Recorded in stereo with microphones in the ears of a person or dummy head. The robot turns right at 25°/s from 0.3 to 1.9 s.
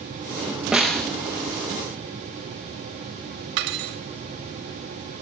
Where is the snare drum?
Centre (ahead or behind), 0.9 m; by 1.1 s 5° left (ahead or behind), 0.9 m.